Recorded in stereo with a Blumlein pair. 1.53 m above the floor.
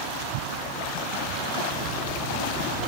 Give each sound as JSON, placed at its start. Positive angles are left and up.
{"t": 1.7, "sound": "a microwave", "azimuth_deg": -35, "distance_m": 2.0}